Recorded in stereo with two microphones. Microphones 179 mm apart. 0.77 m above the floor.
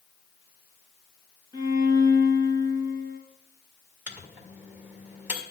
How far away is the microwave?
About 1.8 m.